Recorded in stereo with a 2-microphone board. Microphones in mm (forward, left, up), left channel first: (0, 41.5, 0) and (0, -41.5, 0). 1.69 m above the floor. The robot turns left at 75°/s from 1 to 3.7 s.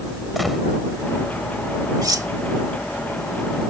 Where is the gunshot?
Centre (ahead or behind).